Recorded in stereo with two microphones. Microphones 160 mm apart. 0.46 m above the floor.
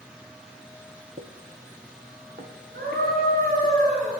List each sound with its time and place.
1.2 s footsteps: 70° right (ahead or behind), 1.2 m; by 3.7 s 75° right (ahead or behind), 2.5 m
2.7 s a scream: 75° right (ahead or behind), 5.5 m